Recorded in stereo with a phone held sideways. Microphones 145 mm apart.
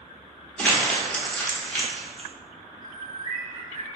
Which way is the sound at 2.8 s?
75° left (ahead or behind).